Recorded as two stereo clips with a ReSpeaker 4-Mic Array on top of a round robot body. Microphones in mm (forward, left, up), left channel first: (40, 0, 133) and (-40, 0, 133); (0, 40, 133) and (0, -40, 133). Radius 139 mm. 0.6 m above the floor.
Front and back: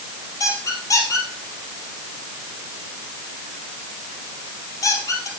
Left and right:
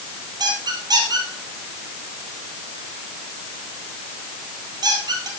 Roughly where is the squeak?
Ahead right.